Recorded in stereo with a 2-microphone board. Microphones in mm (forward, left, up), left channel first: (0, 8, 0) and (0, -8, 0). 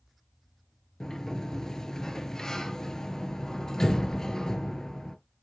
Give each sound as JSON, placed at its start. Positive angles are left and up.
{"t": 1.0, "sound": "a sliding door", "side_deg": 40, "distance_m": 0.7}